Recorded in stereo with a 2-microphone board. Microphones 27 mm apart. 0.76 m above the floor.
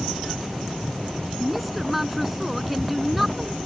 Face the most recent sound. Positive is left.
turn(degrees=0)  # may be behind; listen again after turning